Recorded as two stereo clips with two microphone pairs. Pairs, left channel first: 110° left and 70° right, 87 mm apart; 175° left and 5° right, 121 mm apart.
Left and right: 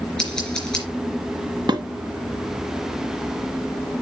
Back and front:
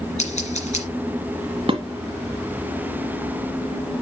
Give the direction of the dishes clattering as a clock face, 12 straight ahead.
1 o'clock.